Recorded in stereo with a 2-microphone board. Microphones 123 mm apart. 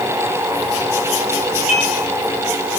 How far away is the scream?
No scream in this recording.